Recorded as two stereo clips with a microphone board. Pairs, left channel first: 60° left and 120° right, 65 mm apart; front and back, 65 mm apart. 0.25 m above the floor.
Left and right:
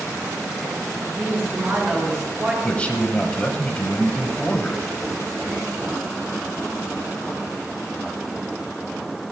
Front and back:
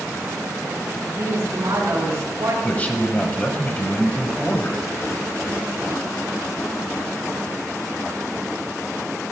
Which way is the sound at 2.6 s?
20° left.